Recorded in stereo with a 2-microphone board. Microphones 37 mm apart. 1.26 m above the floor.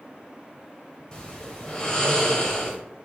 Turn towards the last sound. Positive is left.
turn(degrees=20)  # may be behind; listen again after turning